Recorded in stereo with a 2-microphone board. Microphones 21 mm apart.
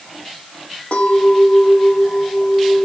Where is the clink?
80° left, 5 m.